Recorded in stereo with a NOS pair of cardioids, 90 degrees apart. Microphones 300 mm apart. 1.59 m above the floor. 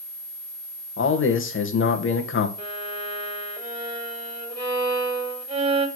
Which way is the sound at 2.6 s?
15° right.